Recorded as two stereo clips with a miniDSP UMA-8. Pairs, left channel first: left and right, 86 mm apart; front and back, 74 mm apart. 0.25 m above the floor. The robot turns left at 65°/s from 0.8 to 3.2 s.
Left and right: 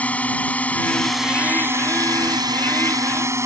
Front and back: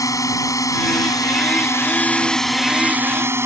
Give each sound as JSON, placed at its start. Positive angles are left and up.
{"t": 0.0, "sound": "a drone", "azimuth_deg": 20}